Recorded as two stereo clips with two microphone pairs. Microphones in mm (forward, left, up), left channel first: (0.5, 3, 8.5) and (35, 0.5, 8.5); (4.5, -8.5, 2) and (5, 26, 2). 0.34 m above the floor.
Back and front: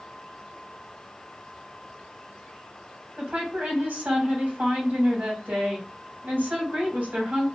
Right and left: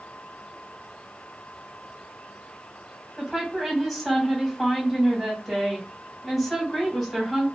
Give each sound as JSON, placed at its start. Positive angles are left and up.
{"t": 3.2, "sound": "a woman speaking", "azimuth_deg": 0, "distance_m": 2.5}